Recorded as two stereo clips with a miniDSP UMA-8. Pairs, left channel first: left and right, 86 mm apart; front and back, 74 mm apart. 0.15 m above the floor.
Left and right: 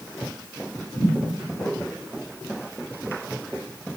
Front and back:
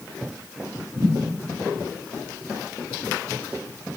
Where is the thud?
140° left, 3 m.